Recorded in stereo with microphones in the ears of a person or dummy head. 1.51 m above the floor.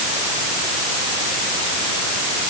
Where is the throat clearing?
No throat clearing in this recording.